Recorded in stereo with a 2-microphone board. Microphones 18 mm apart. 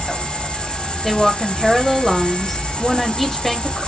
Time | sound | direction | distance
0.0 | an insect | 60° left (ahead or behind) | 4.5 m
1.0 | a woman speaking | 10° left (ahead or behind) | 1.9 m